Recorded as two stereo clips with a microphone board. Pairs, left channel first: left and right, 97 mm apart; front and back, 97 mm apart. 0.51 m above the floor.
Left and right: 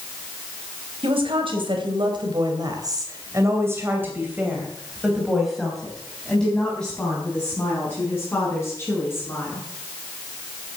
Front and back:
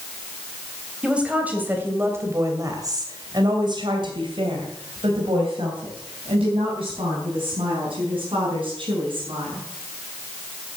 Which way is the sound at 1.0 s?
100° right.